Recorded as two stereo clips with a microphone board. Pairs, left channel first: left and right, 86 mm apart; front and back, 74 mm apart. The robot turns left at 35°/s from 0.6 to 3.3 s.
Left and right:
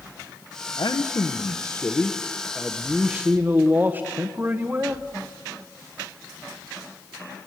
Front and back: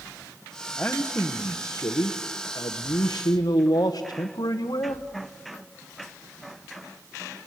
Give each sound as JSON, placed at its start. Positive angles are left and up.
{"t": 0.8, "sound": "a man speaking", "azimuth_deg": 70, "distance_m": 1.0}